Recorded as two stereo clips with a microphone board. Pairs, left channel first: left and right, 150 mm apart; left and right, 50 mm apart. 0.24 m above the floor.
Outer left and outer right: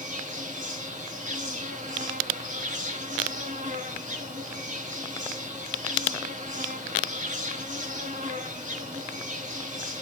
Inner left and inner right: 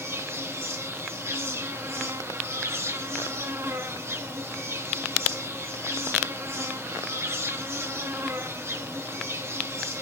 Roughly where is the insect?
Right.